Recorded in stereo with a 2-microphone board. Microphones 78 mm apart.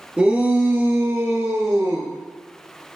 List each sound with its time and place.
0.2 s a shout: 15° right (ahead or behind), 1.8 m; by 2.1 s 45° right (ahead or behind), 3 m